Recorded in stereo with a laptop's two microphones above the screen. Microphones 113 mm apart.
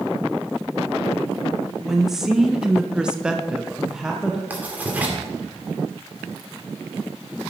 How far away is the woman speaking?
About 1.1 m.